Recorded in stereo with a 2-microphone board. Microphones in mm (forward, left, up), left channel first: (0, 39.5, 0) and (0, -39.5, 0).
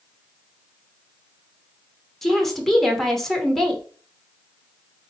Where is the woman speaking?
5° left (ahead or behind), 0.9 m.